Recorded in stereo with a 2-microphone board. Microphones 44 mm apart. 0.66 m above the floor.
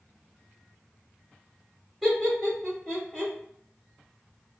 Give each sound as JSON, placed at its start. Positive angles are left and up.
{"t": 2.0, "sound": "laughter", "side_deg": -5, "distance_m": 1.7}